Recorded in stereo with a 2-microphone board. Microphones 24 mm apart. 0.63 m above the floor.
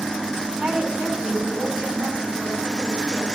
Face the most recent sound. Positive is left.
turn(degrees=-70)  # may be behind; listen again after turning